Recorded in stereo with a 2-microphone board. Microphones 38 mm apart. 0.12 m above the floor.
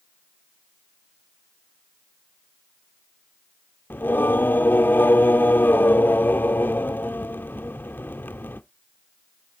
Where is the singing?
65° left (ahead or behind), 0.5 m.